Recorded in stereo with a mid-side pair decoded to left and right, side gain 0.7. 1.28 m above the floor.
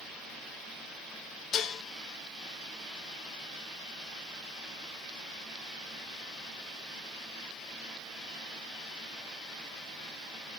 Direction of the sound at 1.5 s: 45° left.